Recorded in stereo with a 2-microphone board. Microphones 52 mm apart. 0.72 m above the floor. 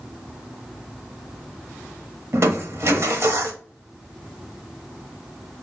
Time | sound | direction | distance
2.3 | crushing | 60° right (ahead or behind) | 0.7 m